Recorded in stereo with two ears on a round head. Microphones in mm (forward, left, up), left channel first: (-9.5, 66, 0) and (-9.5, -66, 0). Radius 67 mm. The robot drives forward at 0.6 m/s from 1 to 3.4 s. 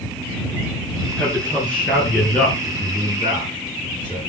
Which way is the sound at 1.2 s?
10° left (ahead or behind).